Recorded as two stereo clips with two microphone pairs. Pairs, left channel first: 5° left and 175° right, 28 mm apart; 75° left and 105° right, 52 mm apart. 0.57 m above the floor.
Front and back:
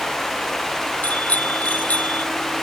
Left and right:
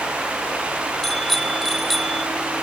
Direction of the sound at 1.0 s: 15° right.